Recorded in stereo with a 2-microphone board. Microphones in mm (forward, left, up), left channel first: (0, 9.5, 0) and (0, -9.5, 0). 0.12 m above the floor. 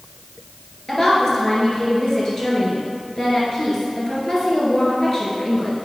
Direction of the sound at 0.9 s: 25° left (ahead or behind).